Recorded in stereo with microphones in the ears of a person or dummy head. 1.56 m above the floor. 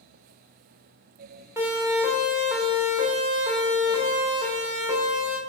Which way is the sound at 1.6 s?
15° right (ahead or behind).